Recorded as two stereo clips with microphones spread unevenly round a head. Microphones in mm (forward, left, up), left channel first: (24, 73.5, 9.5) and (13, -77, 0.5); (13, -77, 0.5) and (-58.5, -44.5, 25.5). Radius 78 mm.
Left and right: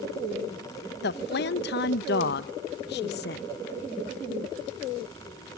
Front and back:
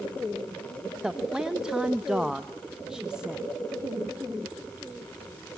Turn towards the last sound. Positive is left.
turn(degrees=70)